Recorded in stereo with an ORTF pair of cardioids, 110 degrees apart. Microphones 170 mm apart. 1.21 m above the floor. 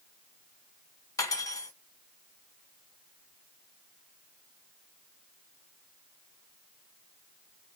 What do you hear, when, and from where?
1.2 s cutlery clinking: 20° left, 1.0 m